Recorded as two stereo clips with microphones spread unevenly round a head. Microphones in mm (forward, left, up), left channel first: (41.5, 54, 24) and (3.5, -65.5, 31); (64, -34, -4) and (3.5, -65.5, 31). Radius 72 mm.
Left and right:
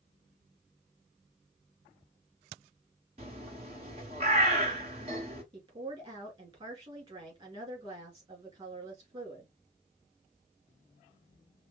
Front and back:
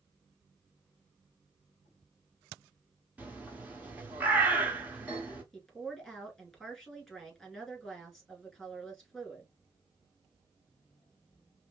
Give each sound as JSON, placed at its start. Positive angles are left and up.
{"t": 3.2, "sound": "a bird", "azimuth_deg": -140, "distance_m": 1.1}
{"t": 5.5, "sound": "a woman speaking", "azimuth_deg": -65, "distance_m": 2.5}